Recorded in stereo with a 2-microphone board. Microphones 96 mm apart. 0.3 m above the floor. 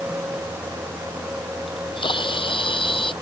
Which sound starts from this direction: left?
A camera shutter, at 1.7 s.